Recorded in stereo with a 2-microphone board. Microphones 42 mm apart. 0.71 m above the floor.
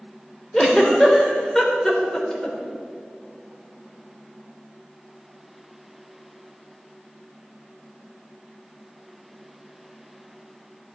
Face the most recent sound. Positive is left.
turn(degrees=10)  # may be behind; listen again after turning